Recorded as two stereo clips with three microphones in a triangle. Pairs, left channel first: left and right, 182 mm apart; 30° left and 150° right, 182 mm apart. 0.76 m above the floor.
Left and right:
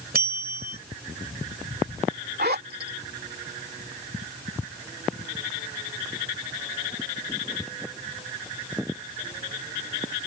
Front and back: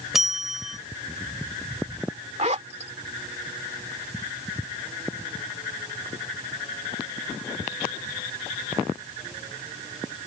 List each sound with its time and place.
0.1 s a bell: 60° right
2.4 s a zipper: 105° right